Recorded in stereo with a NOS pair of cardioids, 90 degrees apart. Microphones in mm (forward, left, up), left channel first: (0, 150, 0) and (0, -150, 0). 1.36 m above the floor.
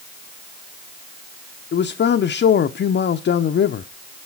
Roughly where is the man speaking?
Ahead left.